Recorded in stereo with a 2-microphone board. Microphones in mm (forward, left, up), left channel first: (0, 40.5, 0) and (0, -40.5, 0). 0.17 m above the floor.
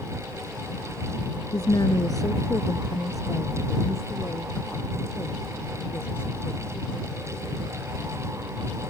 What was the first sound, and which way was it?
A woman speaking, 55° left (ahead or behind).